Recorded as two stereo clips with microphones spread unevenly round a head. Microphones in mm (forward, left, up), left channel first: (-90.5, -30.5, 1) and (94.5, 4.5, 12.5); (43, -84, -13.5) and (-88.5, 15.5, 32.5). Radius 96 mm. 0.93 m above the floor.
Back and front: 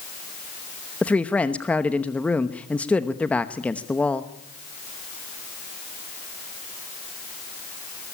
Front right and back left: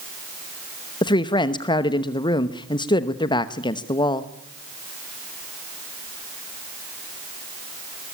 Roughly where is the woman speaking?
Right.